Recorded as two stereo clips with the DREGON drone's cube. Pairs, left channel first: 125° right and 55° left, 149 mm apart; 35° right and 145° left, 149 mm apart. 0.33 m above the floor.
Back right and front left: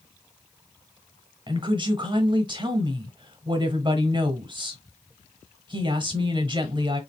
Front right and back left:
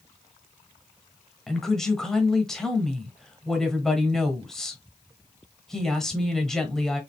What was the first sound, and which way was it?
A woman speaking, 50° left.